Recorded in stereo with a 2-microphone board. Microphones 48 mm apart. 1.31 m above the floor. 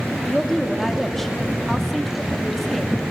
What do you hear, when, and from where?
0.2 s a woman speaking: 5° left (ahead or behind), 2.5 m